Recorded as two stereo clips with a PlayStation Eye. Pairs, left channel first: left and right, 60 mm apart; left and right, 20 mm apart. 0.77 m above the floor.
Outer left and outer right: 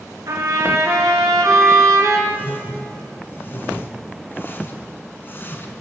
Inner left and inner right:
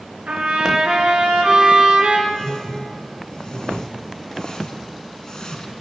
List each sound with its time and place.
0.3 s a trumpet: 75° right (ahead or behind), 4.5 m
2.3 s a whoosh: 35° left (ahead or behind), 1.6 m